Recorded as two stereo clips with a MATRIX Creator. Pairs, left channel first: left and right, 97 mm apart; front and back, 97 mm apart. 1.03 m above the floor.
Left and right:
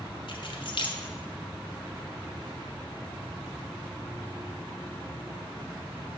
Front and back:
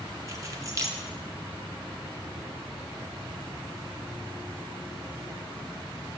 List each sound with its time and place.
0.3 s keys jangling: 125° left, 0.8 m